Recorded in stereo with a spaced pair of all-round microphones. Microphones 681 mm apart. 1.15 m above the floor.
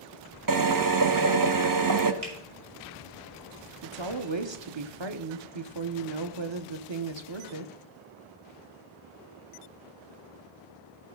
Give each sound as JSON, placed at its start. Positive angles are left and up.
{"t": 0.5, "sound": "a drill", "side_deg": -30, "distance_m": 0.7}
{"t": 2.2, "sound": "a finger snap", "side_deg": -85, "distance_m": 3.0}
{"t": 3.8, "sound": "a woman speaking", "side_deg": -40, "distance_m": 0.9}